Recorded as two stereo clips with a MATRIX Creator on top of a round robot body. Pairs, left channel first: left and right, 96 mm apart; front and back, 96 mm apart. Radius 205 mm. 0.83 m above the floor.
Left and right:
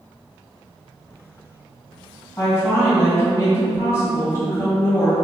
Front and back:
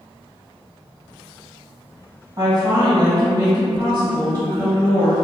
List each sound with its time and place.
2.4 s a woman speaking: 140° left, 1.6 m